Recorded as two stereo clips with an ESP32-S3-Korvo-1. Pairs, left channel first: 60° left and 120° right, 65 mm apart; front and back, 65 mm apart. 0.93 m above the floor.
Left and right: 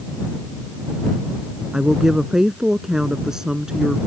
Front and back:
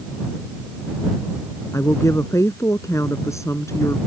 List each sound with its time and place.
1.7 s a woman speaking: 40° right